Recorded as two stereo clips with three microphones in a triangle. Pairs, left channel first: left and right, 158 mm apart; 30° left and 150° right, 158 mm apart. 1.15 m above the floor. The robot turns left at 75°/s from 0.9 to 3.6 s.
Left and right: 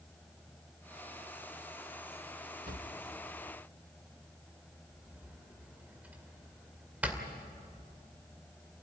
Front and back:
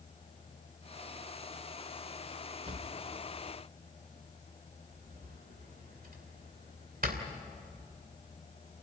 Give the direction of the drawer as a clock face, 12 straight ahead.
3 o'clock.